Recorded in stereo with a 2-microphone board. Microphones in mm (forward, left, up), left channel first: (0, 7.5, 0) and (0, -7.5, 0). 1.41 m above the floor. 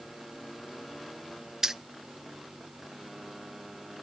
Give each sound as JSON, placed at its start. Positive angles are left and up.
{"t": 1.6, "sound": "keys jangling", "side_deg": -35, "distance_m": 0.6}